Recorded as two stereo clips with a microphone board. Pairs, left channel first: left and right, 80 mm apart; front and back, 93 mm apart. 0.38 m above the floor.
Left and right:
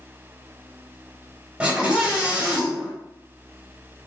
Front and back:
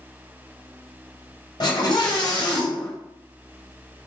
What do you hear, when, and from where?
1.6 s a scream: 20° right, 1.5 m